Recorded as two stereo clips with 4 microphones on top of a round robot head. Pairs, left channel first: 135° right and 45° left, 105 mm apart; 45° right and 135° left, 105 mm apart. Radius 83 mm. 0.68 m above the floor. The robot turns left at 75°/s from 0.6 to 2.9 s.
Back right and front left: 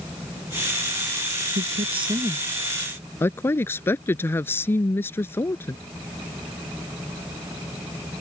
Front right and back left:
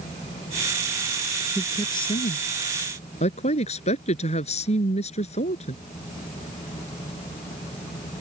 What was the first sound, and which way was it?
A woman speaking, 35° left.